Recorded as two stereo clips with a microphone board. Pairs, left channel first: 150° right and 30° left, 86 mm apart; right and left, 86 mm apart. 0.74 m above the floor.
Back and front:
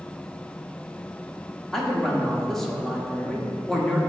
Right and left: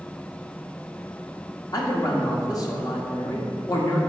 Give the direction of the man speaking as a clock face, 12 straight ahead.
2 o'clock.